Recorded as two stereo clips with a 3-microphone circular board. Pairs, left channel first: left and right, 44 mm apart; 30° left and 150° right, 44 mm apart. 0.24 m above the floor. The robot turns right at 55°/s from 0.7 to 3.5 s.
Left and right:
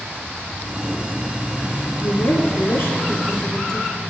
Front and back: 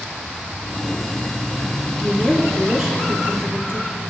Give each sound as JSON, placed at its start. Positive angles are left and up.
{"t": 2.0, "sound": "a woman speaking", "azimuth_deg": 85, "distance_m": 4.0}